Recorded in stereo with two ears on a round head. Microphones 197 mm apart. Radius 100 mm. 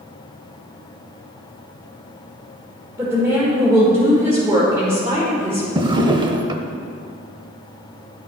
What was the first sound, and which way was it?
A woman speaking, 15° right (ahead or behind).